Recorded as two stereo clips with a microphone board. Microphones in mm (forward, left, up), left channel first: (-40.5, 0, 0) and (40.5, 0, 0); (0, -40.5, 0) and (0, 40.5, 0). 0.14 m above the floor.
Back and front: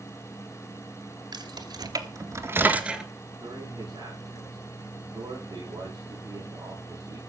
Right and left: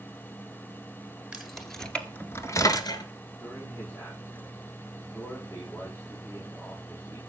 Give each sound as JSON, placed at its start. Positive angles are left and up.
{"t": 1.3, "sound": "keys jangling", "azimuth_deg": 5, "distance_m": 2.5}
{"t": 3.4, "sound": "a man speaking", "azimuth_deg": -35, "distance_m": 10.0}